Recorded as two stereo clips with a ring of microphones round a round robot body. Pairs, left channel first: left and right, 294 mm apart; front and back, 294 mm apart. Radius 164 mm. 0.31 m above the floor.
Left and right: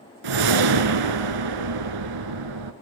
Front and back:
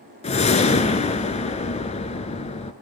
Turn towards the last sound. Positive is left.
turn(degrees=-70)